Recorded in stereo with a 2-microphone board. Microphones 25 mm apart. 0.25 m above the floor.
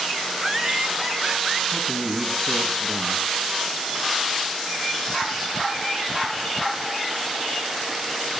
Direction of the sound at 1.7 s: 55° left (ahead or behind).